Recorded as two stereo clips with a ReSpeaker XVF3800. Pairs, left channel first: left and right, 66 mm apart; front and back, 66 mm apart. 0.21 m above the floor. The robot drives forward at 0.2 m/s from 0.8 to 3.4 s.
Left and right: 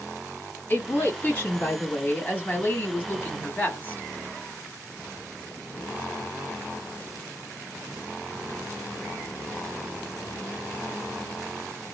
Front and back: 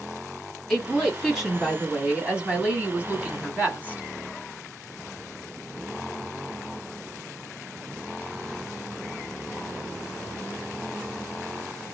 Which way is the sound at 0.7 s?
85° left.